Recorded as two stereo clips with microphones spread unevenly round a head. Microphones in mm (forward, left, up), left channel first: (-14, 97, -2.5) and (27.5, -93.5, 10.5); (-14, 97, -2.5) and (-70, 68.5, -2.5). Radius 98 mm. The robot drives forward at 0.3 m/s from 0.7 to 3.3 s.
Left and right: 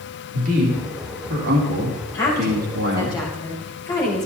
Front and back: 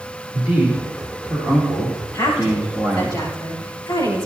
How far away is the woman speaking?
About 6.5 m.